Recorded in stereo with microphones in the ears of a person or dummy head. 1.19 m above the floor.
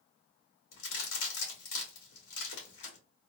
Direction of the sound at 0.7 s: 65° left (ahead or behind).